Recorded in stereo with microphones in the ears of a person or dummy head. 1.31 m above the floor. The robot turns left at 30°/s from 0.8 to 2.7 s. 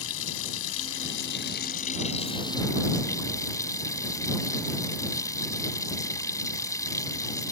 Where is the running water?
70° left; by 7.5 s 10° left.